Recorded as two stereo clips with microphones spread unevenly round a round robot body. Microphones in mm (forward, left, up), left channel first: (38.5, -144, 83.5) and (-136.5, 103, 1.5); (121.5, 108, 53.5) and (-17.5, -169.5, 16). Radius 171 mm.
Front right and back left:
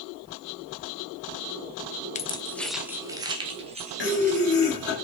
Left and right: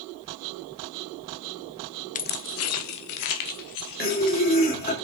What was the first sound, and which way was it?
Keys jangling, 15° left.